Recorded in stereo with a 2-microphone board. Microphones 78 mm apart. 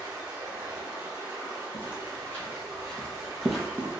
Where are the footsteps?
25° left (ahead or behind), 1.5 m; by 3.9 s 15° right (ahead or behind), 0.9 m.